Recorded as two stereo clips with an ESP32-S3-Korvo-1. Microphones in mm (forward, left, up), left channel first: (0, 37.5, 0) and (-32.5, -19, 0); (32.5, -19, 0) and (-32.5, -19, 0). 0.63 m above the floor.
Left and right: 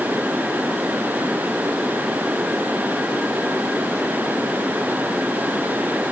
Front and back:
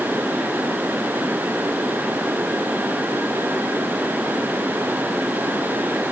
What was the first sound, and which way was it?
Only background noise.